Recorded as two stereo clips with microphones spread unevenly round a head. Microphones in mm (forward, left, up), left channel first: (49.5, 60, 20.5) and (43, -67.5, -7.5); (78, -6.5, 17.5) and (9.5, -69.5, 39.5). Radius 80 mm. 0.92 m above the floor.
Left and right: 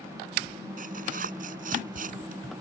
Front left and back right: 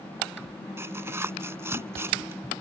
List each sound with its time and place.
0.8 s tearing paper: 75° right